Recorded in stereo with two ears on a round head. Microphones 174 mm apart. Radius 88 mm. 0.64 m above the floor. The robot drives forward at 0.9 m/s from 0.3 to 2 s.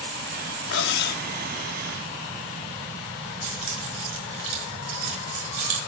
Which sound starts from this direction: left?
Cutlery clinking, at 0.7 s.